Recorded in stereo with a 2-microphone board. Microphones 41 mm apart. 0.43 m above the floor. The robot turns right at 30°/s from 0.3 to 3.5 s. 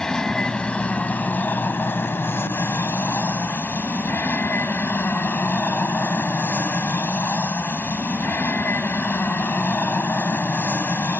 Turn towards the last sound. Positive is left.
turn(degrees=115)